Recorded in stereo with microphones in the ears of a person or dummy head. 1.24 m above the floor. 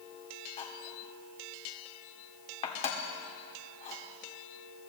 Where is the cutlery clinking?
40° left (ahead or behind), 1.7 m.